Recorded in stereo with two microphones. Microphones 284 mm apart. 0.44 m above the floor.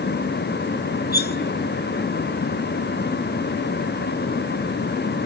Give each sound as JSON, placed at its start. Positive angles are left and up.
{"t": 1.1, "sound": "cutlery clinking", "side_deg": 35, "distance_m": 0.7}